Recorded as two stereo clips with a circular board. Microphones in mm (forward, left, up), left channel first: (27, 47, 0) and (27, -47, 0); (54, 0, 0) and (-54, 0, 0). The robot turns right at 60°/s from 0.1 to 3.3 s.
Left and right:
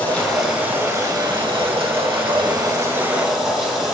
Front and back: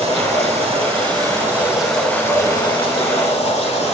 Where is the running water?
160° left, 4.5 m; by 4.0 s 5° right, 4.5 m.